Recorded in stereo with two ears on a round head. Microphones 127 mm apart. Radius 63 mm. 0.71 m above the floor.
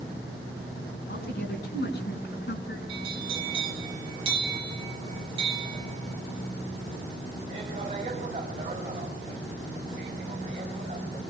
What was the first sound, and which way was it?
A woman speaking, 75° left (ahead or behind).